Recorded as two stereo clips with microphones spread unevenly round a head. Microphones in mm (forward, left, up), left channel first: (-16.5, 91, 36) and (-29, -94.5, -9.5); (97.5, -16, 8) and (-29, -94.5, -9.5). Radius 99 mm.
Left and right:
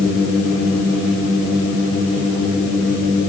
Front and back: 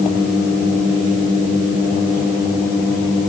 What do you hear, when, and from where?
Only background noise.